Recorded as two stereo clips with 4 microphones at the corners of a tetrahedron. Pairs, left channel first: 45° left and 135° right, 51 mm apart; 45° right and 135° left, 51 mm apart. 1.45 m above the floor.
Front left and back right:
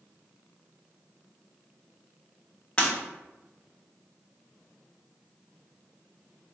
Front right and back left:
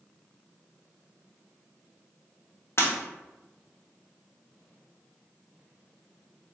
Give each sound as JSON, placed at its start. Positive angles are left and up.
{"t": 2.8, "sound": "breaking glass", "azimuth_deg": -20, "distance_m": 1.3}